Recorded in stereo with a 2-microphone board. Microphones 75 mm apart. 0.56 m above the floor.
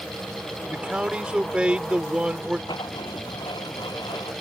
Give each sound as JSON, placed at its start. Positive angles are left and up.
{"t": 0.7, "sound": "a man speaking", "side_deg": -15}
{"t": 2.7, "sound": "writing", "side_deg": 85}